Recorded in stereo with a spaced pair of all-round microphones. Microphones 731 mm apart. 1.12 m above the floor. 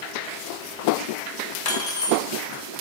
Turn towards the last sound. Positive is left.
turn(degrees=55)  # may be behind; listen again after turning